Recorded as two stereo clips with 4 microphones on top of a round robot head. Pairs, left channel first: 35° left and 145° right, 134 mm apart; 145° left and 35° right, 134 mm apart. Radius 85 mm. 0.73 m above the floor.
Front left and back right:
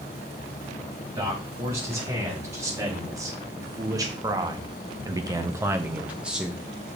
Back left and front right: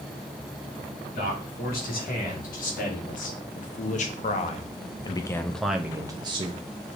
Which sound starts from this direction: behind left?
A man speaking, at 1.1 s.